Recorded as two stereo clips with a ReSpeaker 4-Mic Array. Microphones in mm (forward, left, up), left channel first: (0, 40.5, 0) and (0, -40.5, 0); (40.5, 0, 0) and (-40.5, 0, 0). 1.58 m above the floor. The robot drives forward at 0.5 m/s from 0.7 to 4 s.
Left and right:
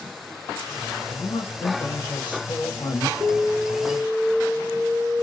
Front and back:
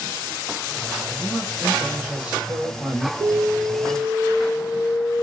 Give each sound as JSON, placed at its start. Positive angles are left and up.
{"t": 1.1, "sound": "a man speaking", "azimuth_deg": 85, "distance_m": 1.2}
{"t": 3.2, "sound": "an alarm", "azimuth_deg": -115, "distance_m": 1.9}